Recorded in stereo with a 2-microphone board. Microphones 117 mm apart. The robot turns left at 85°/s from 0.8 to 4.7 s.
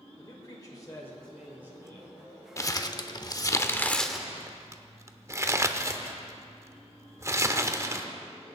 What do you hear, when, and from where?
0.2 s a man speaking: 50° left, 1.8 m; by 2.1 s 60° right, 1.8 m
2.6 s crumpling: 25° left (ahead or behind), 0.8 m; by 8.1 s 25° right (ahead or behind), 0.8 m